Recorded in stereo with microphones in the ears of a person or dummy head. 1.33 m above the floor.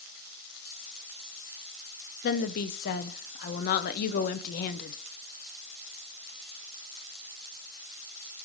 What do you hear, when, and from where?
2.2 s a woman speaking: 55° left (ahead or behind), 0.6 m